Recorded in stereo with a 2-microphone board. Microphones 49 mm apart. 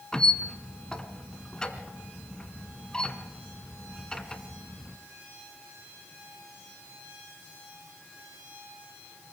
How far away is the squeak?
About 1.7 m.